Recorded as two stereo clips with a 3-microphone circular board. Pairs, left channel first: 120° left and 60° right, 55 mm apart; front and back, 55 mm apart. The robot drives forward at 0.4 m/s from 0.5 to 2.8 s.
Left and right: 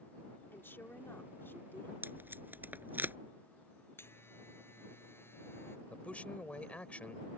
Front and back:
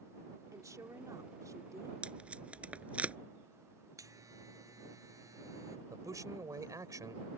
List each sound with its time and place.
0.5 s a woman speaking: 170° left
2.0 s tape being pulled: 110° right; by 3.2 s 115° right
4.0 s a buzzer: 165° left
5.9 s a man speaking: 175° right